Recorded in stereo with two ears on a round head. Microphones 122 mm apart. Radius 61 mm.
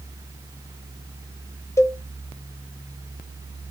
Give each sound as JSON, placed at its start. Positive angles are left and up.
{"t": 1.8, "sound": "a cowbell", "side_deg": 20, "distance_m": 0.7}